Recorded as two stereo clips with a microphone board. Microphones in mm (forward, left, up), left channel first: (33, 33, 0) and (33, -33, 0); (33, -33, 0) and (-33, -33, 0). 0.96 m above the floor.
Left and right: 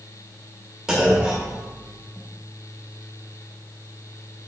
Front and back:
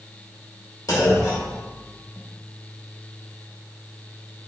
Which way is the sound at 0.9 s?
10° right.